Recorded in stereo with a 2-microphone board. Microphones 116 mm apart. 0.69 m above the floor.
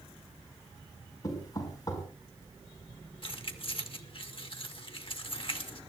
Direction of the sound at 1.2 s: 35° left (ahead or behind).